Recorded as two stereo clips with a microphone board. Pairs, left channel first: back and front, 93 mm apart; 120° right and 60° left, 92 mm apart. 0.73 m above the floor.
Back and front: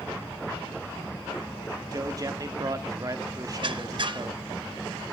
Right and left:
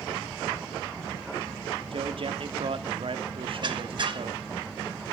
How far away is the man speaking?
About 1.3 m.